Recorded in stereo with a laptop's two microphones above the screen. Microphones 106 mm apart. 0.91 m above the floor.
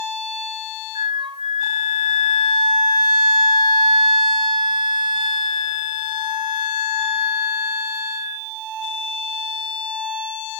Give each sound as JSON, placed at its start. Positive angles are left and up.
{"t": 0.9, "sound": "a flute", "side_deg": -50, "distance_m": 0.7}